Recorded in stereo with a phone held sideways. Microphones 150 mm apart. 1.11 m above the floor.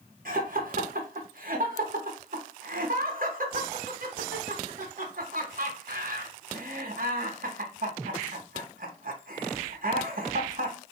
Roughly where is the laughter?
Right.